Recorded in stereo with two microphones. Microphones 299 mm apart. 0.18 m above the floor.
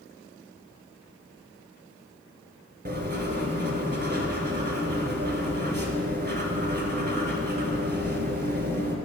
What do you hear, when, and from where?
2.9 s writing: 35° right (ahead or behind), 0.7 m